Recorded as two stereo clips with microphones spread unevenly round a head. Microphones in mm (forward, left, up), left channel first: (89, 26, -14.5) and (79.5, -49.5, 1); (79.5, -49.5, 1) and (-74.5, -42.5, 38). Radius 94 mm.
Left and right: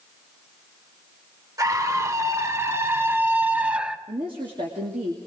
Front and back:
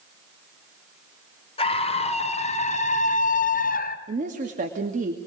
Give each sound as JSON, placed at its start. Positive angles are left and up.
{"t": 1.6, "sound": "a scream", "azimuth_deg": -55, "distance_m": 3.5}
{"t": 4.1, "sound": "a woman speaking", "azimuth_deg": -140, "distance_m": 2.5}